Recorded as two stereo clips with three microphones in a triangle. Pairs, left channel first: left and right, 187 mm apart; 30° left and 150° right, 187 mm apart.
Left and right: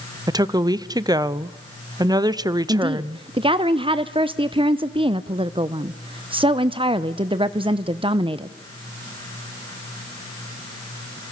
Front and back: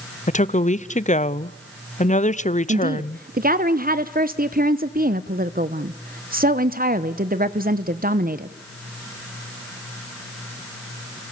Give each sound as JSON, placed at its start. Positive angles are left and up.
{"t": 0.3, "sound": "a woman speaking", "azimuth_deg": -25, "distance_m": 0.6}
{"t": 2.7, "sound": "a woman speaking", "azimuth_deg": -145, "distance_m": 0.7}